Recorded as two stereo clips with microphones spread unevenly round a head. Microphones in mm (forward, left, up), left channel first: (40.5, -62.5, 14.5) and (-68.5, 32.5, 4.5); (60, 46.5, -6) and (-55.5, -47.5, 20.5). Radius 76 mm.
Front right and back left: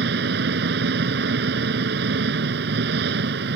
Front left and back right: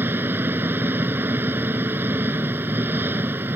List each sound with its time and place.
0.0 s an engine running: 145° left